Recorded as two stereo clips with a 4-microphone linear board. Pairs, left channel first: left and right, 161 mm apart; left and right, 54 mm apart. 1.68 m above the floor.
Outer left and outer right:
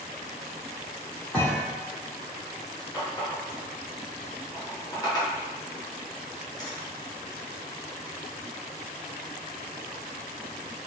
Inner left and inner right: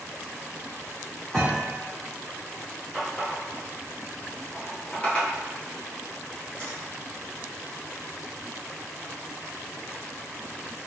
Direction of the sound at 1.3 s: 10° left (ahead or behind).